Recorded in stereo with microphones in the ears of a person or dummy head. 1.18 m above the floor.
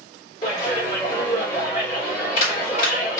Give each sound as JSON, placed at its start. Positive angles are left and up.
{"t": 0.4, "sound": "a clap", "side_deg": 35, "distance_m": 2.5}